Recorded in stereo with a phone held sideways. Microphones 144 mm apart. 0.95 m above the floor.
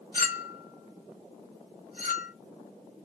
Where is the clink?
75° left (ahead or behind), 1.0 m.